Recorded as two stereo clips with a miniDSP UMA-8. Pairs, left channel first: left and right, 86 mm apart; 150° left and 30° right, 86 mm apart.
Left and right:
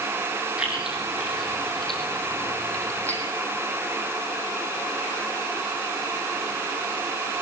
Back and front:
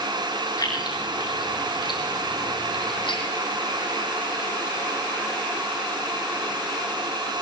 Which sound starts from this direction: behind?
Keys jangling, at 0.6 s.